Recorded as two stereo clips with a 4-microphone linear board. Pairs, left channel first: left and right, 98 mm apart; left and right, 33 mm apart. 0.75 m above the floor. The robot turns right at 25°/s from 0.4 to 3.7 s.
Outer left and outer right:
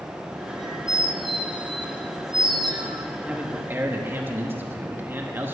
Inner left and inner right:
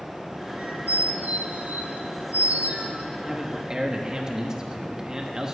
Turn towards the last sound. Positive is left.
turn(degrees=-20)  # may be behind; listen again after turning